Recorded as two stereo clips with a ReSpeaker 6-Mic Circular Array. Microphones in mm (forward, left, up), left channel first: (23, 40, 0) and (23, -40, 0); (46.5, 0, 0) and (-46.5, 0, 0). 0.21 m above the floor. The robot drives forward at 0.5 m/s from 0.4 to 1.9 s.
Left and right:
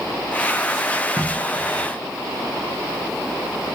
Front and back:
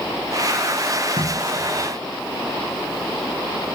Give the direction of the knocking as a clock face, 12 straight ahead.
6 o'clock.